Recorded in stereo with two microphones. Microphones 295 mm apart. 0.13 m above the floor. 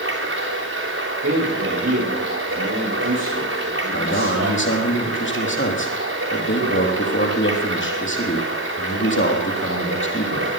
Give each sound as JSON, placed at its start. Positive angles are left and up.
{"t": 0.0, "sound": "running water", "side_deg": -50, "distance_m": 3.5}
{"t": 1.2, "sound": "a man speaking", "side_deg": -55, "distance_m": 8.5}
{"t": 3.9, "sound": "a man speaking", "side_deg": 40, "distance_m": 3.5}